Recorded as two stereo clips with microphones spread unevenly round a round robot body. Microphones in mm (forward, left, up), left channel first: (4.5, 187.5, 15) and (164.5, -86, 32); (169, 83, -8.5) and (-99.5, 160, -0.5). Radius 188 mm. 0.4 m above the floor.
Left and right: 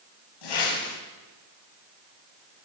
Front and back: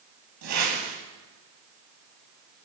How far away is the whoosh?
About 6 m.